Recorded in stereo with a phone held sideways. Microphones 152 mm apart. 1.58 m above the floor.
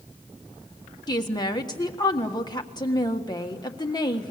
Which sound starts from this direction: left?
A woman speaking, at 1.1 s.